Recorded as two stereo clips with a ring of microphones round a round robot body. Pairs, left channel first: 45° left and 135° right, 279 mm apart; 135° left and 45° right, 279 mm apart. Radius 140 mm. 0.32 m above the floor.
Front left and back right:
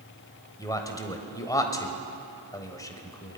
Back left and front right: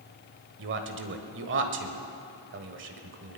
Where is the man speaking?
25° right, 1.4 m.